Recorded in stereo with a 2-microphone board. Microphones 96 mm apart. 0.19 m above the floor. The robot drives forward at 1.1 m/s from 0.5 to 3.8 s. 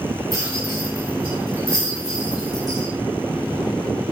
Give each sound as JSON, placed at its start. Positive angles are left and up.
{"t": 0.3, "sound": "a rattle", "side_deg": -30, "distance_m": 9.0}